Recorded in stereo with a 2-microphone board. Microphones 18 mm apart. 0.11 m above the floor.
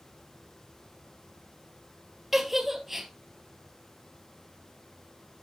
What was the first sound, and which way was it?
A giggle, 15° right (ahead or behind).